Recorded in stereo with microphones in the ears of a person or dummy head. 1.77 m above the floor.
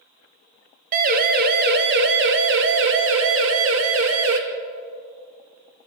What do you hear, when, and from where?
0.9 s a siren: 45° right (ahead or behind), 2 m; by 4.4 s 80° right, 3 m